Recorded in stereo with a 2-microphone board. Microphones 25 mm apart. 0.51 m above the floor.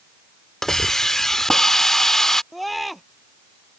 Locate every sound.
0.6 s a hiss: 20° left (ahead or behind)
2.5 s a scream: centre (ahead or behind)